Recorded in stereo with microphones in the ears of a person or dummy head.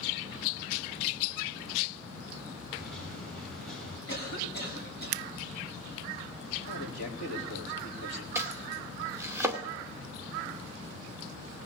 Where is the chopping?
15° right (ahead or behind), 2 m.